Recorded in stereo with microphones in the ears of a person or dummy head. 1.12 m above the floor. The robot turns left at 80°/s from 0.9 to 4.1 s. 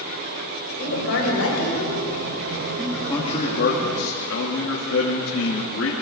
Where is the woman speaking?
125° left, 5.5 m; by 2.0 s 35° left, 5.5 m.